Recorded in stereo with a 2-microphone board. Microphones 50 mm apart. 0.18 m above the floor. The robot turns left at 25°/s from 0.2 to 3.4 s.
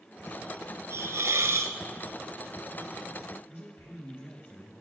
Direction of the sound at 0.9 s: 75° right (ahead or behind).